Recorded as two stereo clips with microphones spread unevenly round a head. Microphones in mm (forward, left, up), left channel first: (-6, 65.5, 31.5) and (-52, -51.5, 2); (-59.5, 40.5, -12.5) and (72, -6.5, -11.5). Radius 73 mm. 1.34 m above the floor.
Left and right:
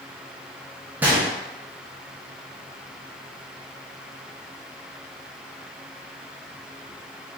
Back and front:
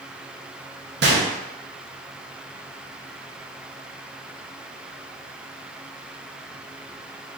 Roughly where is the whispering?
I don't hear whispering.